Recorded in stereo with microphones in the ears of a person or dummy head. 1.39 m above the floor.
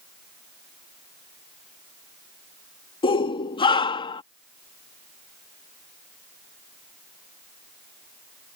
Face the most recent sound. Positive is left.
turn(degrees=25)  # may be behind; listen again after turning